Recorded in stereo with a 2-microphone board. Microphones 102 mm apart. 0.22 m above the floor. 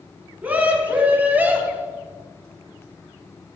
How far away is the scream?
About 2 m.